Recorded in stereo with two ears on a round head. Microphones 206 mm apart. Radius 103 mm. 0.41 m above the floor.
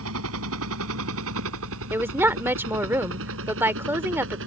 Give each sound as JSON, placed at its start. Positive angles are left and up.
{"t": 0.0, "sound": "a helicopter", "side_deg": -70}
{"t": 1.9, "sound": "a woman speaking", "side_deg": -10}